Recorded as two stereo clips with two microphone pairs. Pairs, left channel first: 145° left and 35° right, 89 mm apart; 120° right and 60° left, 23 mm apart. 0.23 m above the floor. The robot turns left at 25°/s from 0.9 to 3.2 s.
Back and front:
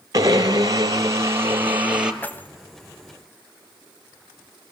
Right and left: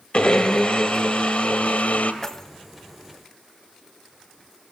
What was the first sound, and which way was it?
A blender, 85° right.